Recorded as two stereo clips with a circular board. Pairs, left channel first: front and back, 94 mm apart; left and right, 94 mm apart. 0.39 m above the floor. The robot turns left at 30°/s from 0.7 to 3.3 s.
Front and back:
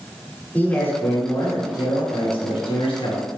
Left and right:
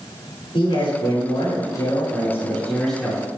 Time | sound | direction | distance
0.5 | a man speaking | 75° left | 5.5 m